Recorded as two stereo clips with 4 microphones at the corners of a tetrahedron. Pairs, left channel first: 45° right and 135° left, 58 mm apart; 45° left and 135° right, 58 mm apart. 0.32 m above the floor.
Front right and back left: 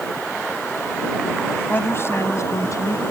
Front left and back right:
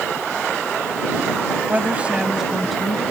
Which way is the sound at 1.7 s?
90° right.